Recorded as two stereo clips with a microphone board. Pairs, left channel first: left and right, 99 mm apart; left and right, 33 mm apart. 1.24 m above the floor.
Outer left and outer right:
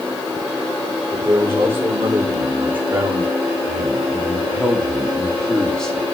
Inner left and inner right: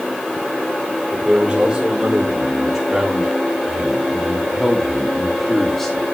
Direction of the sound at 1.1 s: 25° right (ahead or behind).